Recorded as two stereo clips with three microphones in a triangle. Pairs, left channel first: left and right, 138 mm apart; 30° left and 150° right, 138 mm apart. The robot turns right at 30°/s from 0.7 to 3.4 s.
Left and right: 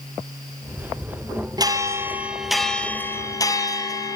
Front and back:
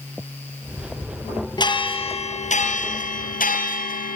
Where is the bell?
30° right, 2.5 m; by 4.2 s 25° left, 2.5 m.